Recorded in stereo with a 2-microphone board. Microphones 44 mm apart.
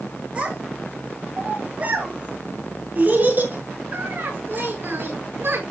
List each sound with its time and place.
0.3 s a child speaking: 25° right (ahead or behind), 6 m; by 5.6 s 55° right (ahead or behind), 6 m